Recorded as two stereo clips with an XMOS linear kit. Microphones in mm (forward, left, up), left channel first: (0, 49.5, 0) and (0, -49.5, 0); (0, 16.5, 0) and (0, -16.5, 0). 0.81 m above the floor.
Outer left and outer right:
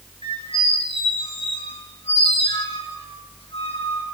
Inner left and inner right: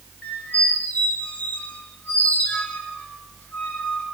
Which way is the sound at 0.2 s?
65° left (ahead or behind).